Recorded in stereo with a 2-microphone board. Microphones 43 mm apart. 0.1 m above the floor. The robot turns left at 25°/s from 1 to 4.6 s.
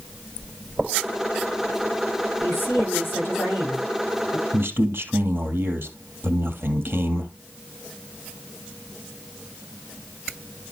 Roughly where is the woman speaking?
Left.